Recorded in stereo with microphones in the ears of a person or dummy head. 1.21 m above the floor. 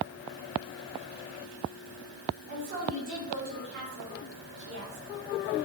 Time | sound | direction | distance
2.5 | a woman speaking | 45° right (ahead or behind) | 3 m